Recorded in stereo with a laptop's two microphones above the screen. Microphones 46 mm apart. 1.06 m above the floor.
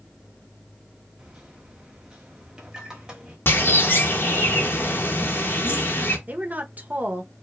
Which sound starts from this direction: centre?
A microwave, at 1.2 s.